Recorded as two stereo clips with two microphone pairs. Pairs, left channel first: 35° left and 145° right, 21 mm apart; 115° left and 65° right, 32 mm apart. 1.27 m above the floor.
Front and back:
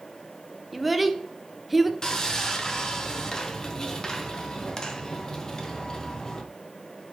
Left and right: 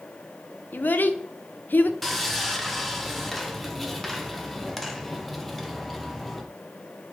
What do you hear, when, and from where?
0.7 s a child speaking: 130° left, 0.5 m
2.0 s sawing: 40° left, 0.6 m